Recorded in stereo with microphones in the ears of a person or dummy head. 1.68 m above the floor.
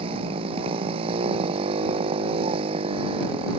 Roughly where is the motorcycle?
Right.